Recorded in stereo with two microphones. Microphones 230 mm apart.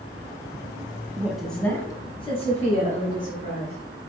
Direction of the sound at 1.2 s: 10° right (ahead or behind).